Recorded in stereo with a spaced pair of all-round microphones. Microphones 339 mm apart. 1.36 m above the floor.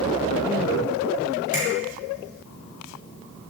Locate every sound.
1.5 s a finger snap: 60° left (ahead or behind), 6.5 m